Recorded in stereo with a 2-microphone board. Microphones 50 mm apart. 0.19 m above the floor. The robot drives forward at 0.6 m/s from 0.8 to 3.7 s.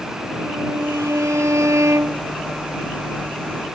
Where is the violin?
75° right (ahead or behind); by 2.3 s 65° right (ahead or behind).